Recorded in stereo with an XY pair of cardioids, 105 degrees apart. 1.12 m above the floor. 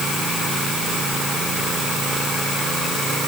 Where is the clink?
No clink in this recording.